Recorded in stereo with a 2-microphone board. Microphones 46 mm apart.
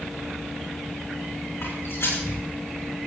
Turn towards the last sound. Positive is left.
turn(degrees=80)